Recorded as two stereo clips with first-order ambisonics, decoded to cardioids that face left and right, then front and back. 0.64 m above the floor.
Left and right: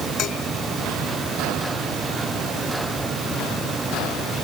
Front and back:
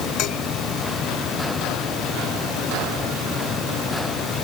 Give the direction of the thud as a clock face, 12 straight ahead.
No thud in this recording.